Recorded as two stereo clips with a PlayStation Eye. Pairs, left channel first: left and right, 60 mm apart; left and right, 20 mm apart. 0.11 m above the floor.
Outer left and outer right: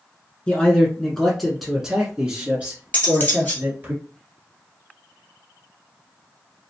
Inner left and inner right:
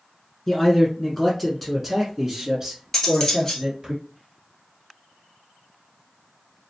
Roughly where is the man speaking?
Centre.